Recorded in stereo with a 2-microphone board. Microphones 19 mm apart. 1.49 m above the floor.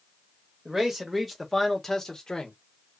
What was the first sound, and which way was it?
A man speaking, 25° right (ahead or behind).